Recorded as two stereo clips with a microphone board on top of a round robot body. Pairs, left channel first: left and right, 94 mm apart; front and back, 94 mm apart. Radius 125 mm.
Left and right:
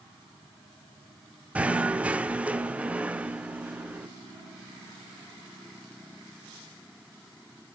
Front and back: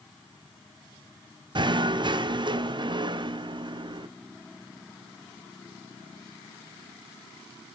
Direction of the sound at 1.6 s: 165° right.